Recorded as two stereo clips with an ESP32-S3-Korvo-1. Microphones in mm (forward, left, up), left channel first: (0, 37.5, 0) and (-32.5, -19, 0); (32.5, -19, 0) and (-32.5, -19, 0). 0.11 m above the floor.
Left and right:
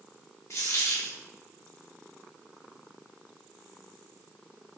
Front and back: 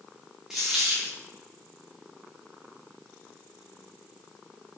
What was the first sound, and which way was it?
A dropped coin, 105° left.